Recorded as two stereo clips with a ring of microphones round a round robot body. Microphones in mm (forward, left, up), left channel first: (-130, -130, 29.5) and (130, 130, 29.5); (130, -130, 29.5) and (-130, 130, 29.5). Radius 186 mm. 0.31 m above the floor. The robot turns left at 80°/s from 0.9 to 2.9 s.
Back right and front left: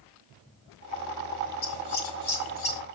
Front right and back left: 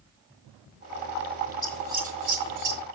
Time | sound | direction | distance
1.6 | scissors | 125° right | 1.9 m